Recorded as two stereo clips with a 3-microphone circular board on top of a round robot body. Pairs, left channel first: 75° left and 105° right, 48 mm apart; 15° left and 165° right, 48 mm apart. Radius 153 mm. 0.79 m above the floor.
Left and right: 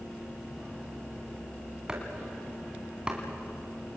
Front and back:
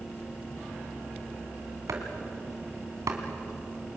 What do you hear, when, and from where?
1.9 s chopping: 175° right, 2.5 m